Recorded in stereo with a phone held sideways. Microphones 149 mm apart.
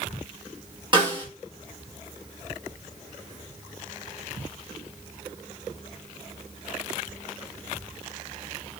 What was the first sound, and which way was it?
A snare drum, 30° right (ahead or behind).